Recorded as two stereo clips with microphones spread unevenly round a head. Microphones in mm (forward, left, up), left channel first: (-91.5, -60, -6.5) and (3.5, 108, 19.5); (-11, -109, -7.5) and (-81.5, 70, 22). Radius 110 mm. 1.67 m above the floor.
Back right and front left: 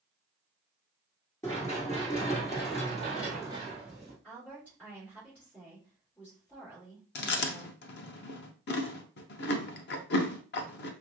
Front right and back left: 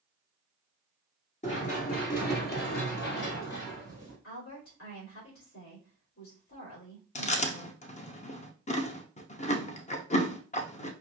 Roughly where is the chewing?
Behind right.